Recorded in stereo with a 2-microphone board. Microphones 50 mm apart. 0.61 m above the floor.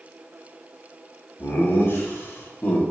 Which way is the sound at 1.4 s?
50° left (ahead or behind).